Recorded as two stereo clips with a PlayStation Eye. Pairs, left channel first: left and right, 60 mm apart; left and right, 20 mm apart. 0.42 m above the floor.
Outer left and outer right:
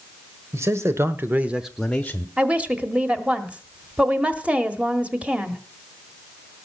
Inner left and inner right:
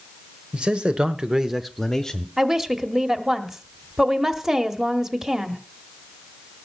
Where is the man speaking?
50° right (ahead or behind), 1.5 m; by 2.3 s 20° left (ahead or behind), 1.2 m.